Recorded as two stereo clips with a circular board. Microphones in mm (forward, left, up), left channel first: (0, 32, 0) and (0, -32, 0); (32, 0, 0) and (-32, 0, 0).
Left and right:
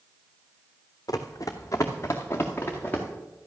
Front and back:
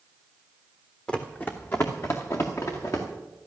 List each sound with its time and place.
1.1 s running footsteps: 75° left, 1.4 m; by 3.0 s 30° left, 3.5 m